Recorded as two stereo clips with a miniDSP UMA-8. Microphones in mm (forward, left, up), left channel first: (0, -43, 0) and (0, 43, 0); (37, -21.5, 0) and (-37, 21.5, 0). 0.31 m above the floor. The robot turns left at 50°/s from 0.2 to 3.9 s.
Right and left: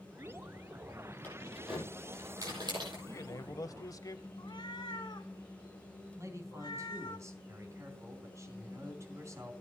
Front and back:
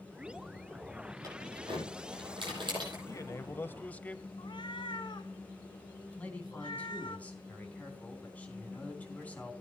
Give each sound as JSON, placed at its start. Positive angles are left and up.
{"t": 1.2, "sound": "keys jangling", "azimuth_deg": -160, "distance_m": 8.0}
{"t": 3.1, "sound": "a man speaking", "azimuth_deg": -55, "distance_m": 1.1}
{"t": 4.4, "sound": "a cat meowing", "azimuth_deg": -55, "distance_m": 0.9}
{"t": 6.2, "sound": "a man speaking", "azimuth_deg": 40, "distance_m": 3.0}